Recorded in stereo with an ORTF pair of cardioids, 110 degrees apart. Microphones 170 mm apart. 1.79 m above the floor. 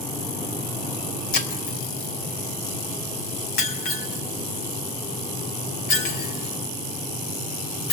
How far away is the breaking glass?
About 4 m.